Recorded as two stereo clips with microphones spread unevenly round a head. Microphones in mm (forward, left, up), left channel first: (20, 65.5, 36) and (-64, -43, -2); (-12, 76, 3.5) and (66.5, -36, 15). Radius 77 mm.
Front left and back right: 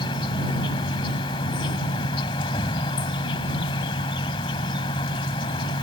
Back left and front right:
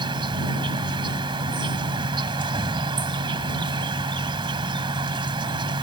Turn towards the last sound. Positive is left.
turn(degrees=0)